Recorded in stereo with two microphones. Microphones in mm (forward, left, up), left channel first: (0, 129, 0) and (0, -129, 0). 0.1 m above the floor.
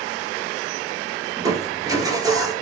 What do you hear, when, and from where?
1.4 s crushing: 15° right (ahead or behind), 1.0 m